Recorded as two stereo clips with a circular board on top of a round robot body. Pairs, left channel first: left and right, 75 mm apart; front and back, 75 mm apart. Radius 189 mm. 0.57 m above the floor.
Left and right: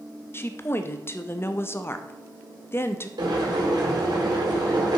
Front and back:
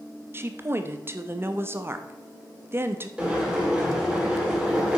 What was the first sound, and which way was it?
A woman speaking, 135° left.